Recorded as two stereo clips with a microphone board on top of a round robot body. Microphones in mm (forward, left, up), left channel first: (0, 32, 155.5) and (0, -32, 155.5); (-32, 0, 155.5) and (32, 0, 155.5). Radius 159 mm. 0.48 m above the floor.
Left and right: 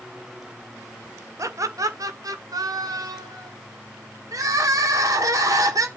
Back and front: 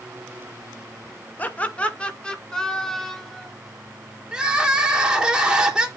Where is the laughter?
120° right, 1.8 m; by 3.5 s 95° right, 3 m.